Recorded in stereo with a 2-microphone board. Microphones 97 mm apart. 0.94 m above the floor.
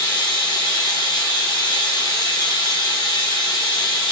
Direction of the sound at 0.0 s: 50° left (ahead or behind).